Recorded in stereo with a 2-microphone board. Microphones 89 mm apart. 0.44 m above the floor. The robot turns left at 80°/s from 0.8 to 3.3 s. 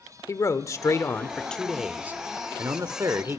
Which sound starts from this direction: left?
A man speaking, at 0.3 s.